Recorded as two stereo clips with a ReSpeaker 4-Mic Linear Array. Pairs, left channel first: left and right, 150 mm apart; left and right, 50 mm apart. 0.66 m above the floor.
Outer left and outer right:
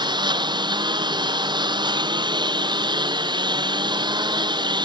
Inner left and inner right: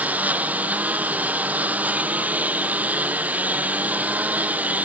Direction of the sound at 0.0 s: 30° right (ahead or behind).